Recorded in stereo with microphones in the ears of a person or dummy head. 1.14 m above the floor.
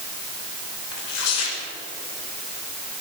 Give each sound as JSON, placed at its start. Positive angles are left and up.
{"t": 0.9, "sound": "tearing paper", "side_deg": 85, "distance_m": 5.0}